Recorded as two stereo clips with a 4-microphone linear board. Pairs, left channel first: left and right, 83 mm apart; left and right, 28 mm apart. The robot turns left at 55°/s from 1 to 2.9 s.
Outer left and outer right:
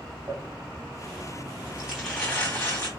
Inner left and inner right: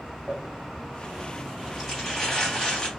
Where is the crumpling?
45° right (ahead or behind), 2.5 m; by 2.9 s 40° left (ahead or behind), 2.5 m.